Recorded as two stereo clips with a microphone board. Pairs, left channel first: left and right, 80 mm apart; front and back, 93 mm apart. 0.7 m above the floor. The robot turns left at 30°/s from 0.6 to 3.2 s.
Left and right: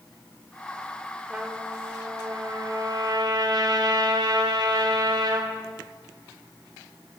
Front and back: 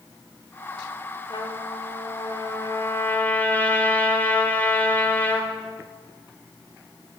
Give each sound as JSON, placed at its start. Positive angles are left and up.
{"t": 1.3, "sound": "a trumpet", "azimuth_deg": -10, "distance_m": 2.0}